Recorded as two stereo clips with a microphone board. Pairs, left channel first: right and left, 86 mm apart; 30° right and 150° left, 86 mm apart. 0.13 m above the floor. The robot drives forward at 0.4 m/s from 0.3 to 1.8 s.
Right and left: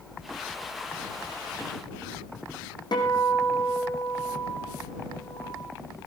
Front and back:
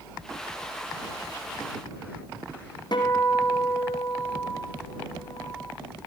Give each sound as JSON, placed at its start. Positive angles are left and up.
{"t": 2.9, "sound": "a guitar", "azimuth_deg": -60, "distance_m": 5.0}